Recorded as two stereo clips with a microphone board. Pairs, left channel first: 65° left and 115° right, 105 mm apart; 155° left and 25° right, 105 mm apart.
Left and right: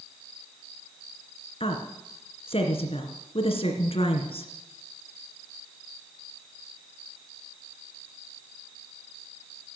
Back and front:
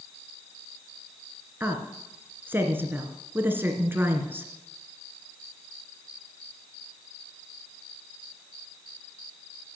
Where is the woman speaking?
45° left, 2.5 m.